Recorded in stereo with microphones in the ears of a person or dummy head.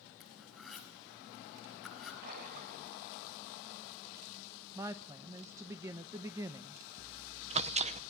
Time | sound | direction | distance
0.2 | cutlery clinking | 5° left (ahead or behind) | 6 m
2.2 | a splash | 50° right (ahead or behind) | 5.5 m
4.8 | a woman speaking | 20° right (ahead or behind) | 0.9 m
7.0 | chewing | 25° right (ahead or behind) | 0.8 m